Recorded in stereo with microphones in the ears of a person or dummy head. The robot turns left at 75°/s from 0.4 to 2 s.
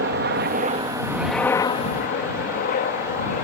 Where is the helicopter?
55° right (ahead or behind); by 3.4 s 45° left (ahead or behind).